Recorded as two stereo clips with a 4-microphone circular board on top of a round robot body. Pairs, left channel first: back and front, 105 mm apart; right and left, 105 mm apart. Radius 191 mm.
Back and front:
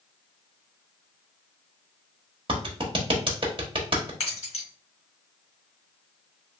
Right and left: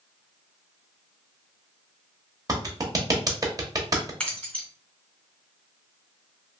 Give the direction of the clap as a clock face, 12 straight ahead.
11 o'clock.